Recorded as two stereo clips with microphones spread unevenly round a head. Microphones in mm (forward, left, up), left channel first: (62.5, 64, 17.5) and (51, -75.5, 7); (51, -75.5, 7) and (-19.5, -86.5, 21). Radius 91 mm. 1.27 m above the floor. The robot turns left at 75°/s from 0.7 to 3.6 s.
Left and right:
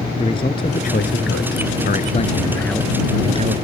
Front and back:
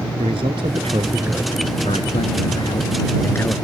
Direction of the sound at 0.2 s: 150° left.